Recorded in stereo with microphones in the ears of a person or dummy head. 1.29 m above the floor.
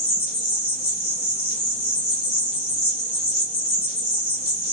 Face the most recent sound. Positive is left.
turn(degrees=30)  # may be behind; listen again after turning